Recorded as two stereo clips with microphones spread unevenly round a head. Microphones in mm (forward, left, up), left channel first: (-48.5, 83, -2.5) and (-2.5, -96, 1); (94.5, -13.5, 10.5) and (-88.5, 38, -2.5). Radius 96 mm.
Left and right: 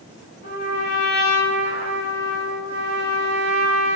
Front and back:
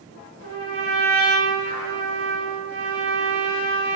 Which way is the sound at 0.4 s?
135° left.